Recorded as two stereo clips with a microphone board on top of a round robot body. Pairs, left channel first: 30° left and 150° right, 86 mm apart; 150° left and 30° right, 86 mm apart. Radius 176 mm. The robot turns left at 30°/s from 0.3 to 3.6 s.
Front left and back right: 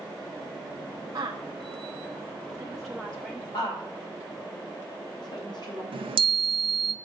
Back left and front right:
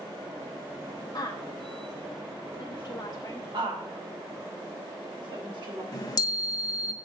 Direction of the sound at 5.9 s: 165° right.